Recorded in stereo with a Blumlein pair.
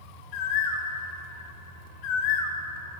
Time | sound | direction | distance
0.3 | a bird | 40° left | 0.7 m